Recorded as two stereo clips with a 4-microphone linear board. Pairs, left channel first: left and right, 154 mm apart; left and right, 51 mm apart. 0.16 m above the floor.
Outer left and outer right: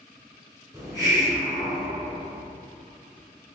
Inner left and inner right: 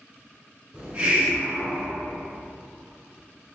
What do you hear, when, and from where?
0.7 s a hiss: 25° right (ahead or behind), 1.7 m